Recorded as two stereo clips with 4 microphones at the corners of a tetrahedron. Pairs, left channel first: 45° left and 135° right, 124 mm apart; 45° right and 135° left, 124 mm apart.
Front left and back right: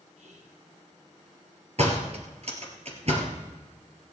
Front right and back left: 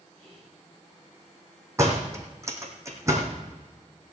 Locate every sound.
0.2 s whispering: 110° right, 4 m
1.8 s a door slam: 160° right, 2.5 m